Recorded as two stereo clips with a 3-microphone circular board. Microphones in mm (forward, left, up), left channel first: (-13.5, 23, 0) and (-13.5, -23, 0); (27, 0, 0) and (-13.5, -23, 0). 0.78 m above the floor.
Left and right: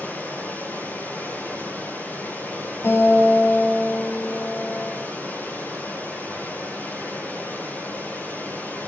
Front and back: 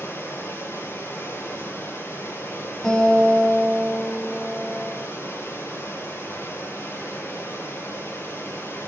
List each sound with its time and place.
0.0 s running water: 45° left, 3.5 m
2.8 s a guitar: 110° left, 4 m